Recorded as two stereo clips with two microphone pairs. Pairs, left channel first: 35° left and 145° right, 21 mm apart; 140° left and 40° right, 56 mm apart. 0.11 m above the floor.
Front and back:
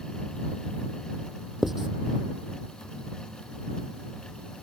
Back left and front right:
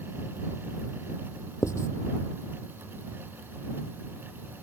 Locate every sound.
1.6 s writing: 135° left